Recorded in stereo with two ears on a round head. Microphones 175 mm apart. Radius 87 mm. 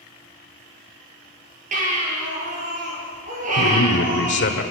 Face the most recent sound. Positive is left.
turn(degrees=65)  # may be behind; listen again after turning